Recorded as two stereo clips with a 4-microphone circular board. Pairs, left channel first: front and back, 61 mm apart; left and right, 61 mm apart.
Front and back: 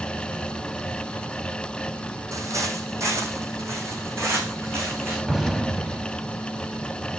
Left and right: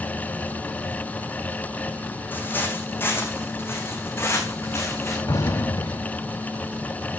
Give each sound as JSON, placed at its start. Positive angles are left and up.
{"t": 2.3, "sound": "footsteps", "azimuth_deg": 150, "distance_m": 2.5}
{"t": 5.3, "sound": "an explosion", "azimuth_deg": 95, "distance_m": 1.1}